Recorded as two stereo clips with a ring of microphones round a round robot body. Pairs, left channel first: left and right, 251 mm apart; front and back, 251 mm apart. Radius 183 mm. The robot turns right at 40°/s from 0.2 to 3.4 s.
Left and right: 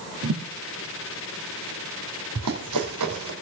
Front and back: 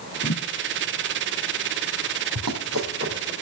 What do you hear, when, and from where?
0.2 s a thud: 65° right, 3 m; by 0.4 s 55° right, 3 m
2.4 s running footsteps: 140° right, 2.5 m; by 3.3 s 100° right, 2.5 m